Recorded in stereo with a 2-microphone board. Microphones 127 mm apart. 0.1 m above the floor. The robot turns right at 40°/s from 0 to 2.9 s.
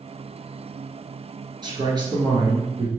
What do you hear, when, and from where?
1.6 s a man speaking: 95° right, 1.3 m; by 2.9 s 45° right, 1.3 m